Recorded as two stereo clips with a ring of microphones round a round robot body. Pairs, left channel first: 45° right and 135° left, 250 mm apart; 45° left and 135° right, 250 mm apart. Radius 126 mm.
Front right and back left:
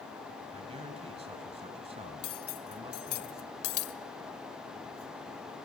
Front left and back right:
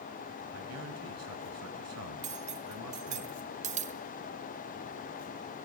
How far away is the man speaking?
About 3 m.